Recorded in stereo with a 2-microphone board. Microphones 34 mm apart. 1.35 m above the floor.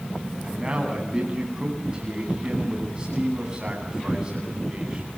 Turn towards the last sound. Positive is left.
turn(degrees=-20)  # may be behind; listen again after turning